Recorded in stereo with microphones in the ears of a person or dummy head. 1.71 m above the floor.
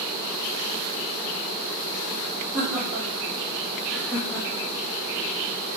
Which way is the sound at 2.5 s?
15° right (ahead or behind).